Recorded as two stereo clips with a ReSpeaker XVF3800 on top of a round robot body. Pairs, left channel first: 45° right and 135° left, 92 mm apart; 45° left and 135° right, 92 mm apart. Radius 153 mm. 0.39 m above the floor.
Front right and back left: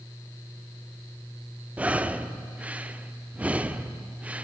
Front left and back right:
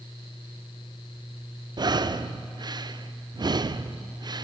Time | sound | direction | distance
1.8 | breathing | 155° right | 0.9 m